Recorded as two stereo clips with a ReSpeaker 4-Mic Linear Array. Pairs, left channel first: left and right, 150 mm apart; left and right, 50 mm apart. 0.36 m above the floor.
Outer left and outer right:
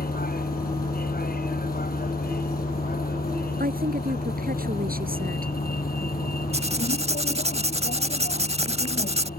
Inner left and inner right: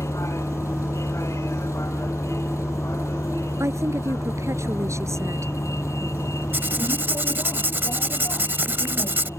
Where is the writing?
45° right (ahead or behind).